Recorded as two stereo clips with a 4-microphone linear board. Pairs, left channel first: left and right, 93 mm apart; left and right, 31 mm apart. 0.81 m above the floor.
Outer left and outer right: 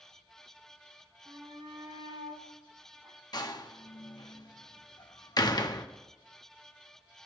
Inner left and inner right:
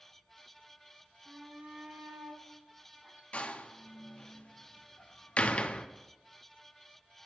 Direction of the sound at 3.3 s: 45° left (ahead or behind).